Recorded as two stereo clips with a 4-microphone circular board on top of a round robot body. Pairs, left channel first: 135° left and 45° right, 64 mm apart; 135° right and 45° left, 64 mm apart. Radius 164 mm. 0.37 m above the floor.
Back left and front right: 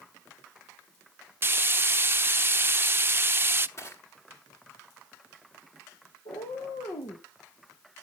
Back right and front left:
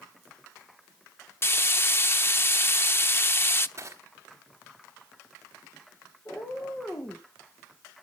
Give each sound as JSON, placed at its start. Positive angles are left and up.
{"t": 1.4, "sound": "frying", "azimuth_deg": -90, "distance_m": 0.9}
{"t": 3.8, "sound": "crushing", "azimuth_deg": 90, "distance_m": 4.0}
{"t": 6.2, "sound": "a cat meowing", "azimuth_deg": 155, "distance_m": 3.0}